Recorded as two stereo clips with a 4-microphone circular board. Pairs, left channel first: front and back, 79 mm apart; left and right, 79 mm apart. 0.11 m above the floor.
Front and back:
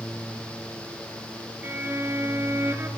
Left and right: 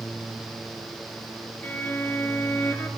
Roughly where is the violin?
Behind left.